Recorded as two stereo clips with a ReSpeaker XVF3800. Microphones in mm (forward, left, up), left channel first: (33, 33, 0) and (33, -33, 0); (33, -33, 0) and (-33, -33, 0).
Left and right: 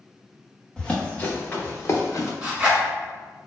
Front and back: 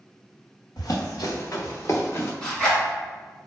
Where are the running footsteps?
10° left, 1.4 m; by 2.3 s 55° left, 1.3 m.